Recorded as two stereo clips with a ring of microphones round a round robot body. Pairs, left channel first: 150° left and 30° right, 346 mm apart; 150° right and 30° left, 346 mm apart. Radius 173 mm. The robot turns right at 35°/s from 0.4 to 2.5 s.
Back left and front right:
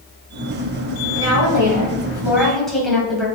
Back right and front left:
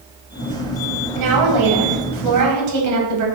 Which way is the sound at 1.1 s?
15° left.